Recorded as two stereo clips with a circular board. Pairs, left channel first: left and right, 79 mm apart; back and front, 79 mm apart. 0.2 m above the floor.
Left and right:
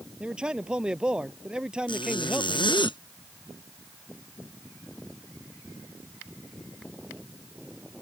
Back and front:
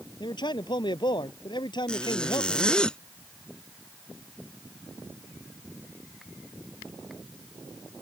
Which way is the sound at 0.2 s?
170° right.